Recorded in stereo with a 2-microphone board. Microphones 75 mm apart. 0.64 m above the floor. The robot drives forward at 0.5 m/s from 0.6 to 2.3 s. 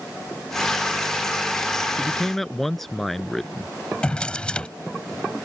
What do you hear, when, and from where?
2.0 s a man speaking: 5° left (ahead or behind)
4.0 s a drawer: 15° left (ahead or behind)